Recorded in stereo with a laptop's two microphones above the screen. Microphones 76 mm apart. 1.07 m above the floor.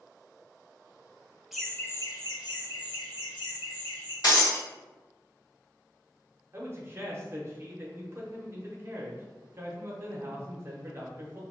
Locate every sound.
1.5 s laughter: 5° right (ahead or behind), 0.5 m; by 4.1 s 85° left, 1.9 m
4.2 s breaking glass: 65° left (ahead or behind), 1.5 m
6.5 s a man speaking: 35° right (ahead or behind), 0.8 m